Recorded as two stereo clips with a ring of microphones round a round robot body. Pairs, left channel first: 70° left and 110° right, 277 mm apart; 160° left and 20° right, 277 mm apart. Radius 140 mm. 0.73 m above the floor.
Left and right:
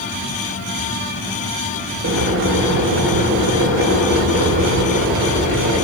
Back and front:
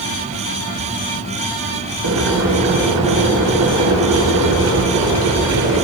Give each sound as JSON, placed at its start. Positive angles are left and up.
{"t": 2.0, "sound": "boiling", "azimuth_deg": -70, "distance_m": 2.5}